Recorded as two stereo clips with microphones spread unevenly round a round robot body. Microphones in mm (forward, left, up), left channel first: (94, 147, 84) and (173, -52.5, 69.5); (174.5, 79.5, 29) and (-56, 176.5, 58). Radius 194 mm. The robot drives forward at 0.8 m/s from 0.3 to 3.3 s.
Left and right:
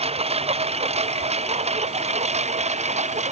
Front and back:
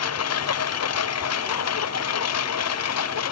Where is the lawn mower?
5° right; by 3.3 s 10° right.